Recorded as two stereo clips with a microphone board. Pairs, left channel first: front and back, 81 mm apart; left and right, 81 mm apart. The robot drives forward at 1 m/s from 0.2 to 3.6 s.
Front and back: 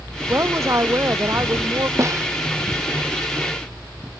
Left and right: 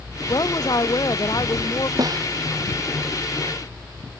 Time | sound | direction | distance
0.3 | a woman speaking | 125° left | ?
2.0 | a snare drum | 130° right | ?